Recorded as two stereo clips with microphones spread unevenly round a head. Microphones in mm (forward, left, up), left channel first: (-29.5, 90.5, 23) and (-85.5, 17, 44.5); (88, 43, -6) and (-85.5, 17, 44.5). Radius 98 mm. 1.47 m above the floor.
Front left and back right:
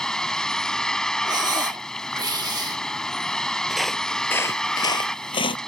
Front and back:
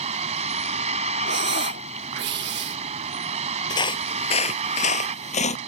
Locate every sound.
0.0 s a vehicle: 140° left
1.2 s breathing: 160° right
3.7 s footsteps: 75° right; by 5.6 s 65° left